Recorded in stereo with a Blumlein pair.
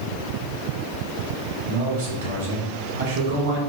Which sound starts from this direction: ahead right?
A man speaking, at 1.6 s.